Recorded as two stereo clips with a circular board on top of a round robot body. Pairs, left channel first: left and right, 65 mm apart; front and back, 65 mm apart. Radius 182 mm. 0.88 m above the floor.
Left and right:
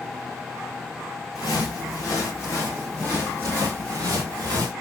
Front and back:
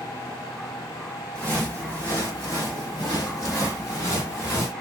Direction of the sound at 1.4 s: 75° left.